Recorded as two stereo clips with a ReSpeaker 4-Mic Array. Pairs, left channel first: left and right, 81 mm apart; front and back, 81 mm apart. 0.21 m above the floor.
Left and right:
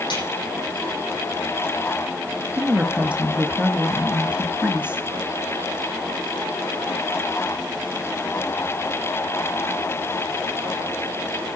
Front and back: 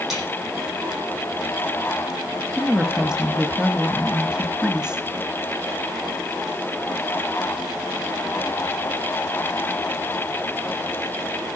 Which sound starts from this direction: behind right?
A woman speaking, at 2.6 s.